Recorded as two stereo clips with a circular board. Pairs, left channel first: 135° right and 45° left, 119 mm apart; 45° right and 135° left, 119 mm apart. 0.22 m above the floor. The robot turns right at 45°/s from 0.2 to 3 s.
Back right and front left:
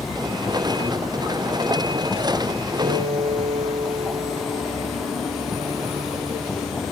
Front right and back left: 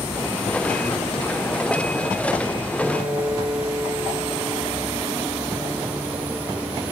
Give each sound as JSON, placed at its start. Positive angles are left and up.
{"t": 2.8, "sound": "a piano", "azimuth_deg": 50, "distance_m": 4.0}